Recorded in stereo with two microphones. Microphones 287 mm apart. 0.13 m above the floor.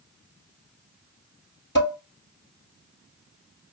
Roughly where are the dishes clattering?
Left.